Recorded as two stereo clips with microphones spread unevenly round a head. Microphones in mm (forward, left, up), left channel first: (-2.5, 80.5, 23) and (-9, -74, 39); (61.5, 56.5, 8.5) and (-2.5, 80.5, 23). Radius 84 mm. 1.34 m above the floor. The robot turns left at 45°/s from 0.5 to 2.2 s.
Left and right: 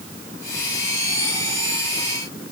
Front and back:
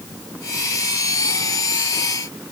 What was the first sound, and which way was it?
Only background noise.